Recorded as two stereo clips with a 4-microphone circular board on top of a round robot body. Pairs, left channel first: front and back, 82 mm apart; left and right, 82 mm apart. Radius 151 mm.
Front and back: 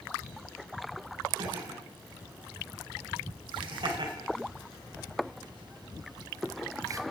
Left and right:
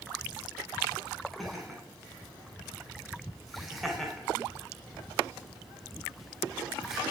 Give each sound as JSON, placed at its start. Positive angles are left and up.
{"t": 1.4, "sound": "laughter", "azimuth_deg": 180, "distance_m": 5.0}